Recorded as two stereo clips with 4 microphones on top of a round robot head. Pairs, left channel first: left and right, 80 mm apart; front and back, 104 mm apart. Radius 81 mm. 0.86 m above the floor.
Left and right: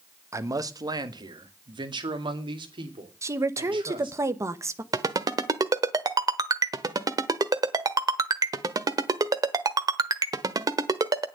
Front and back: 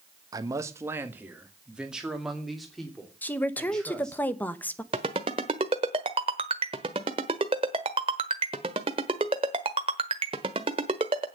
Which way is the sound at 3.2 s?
65° right.